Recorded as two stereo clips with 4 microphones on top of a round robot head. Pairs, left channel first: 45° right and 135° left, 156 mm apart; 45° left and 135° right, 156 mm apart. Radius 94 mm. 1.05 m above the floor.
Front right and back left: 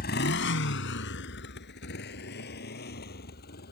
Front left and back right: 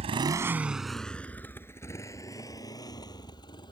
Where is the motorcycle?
85° right; by 3.7 s 20° right.